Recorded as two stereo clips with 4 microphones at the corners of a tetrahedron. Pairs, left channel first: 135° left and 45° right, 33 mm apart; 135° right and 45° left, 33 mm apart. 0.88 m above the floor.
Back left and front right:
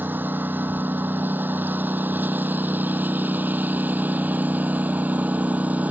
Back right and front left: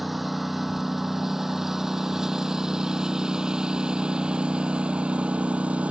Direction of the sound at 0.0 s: 40° right.